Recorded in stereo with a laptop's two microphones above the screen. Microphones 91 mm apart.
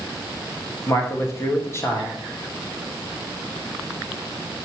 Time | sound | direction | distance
0.9 | a man speaking | 30° left (ahead or behind) | 1.4 m